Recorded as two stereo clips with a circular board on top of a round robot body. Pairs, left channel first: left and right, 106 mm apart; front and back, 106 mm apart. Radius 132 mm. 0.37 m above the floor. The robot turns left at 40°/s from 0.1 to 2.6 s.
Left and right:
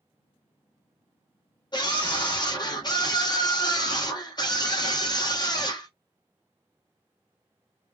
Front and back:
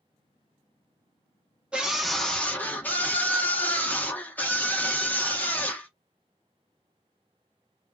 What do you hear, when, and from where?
1.7 s a scream: 105° left, 1.7 m; by 5.9 s 70° left, 1.7 m